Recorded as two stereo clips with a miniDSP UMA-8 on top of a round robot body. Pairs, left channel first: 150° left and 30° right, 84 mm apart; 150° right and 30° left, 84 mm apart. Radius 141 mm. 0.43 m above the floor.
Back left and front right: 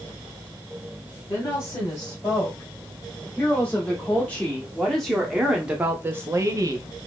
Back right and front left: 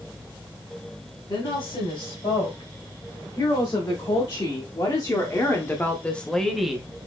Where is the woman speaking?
160° right, 3 m; by 6.9 s 50° right, 1.2 m.